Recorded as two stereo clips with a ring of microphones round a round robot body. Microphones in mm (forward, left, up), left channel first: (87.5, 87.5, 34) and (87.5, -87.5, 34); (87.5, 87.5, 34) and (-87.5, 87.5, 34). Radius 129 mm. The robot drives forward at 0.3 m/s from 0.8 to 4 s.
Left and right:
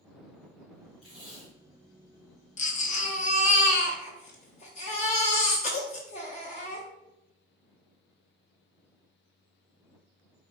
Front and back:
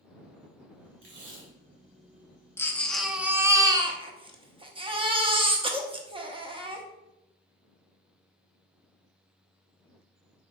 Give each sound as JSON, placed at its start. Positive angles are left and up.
{"t": 1.0, "sound": "tape being pulled", "azimuth_deg": -175, "distance_m": 1.7}
{"t": 2.6, "sound": "a baby crying", "azimuth_deg": 70, "distance_m": 0.6}